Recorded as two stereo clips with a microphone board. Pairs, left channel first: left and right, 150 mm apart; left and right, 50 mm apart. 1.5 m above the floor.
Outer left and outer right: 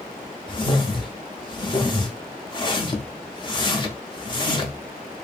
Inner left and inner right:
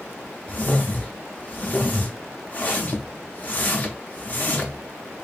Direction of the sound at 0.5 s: 30° left (ahead or behind).